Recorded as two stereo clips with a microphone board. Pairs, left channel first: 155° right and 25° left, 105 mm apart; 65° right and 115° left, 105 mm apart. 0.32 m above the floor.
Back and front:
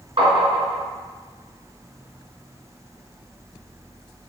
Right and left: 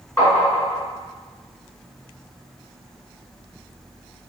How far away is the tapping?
About 2.0 m.